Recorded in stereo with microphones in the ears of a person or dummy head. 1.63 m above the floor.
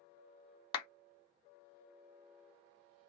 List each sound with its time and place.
0.7 s a clap: 30° left (ahead or behind), 0.7 m